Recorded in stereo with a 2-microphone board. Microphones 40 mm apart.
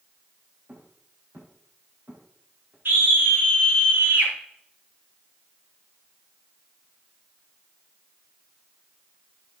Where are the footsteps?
55° right (ahead or behind), 6.5 m; by 2.8 s 75° right (ahead or behind), 6 m.